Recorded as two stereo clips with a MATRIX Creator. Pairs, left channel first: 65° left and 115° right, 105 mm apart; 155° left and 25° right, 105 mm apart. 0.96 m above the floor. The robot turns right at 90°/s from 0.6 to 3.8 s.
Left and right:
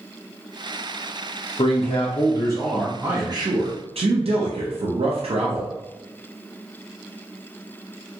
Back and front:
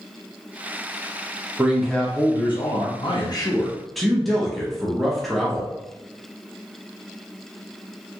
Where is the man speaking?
45° left, 0.5 m; by 5.7 s 115° right, 0.5 m.